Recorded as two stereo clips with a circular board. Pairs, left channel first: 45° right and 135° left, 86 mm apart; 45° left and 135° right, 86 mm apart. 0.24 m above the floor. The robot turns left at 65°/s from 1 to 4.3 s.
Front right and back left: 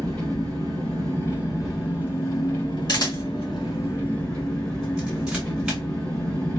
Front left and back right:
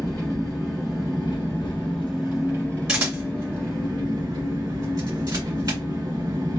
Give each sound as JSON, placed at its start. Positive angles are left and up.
{"t": 0.0, "sound": "an engine running", "azimuth_deg": 90, "distance_m": 1.9}
{"t": 2.9, "sound": "a camera shutter", "azimuth_deg": -55, "distance_m": 2.5}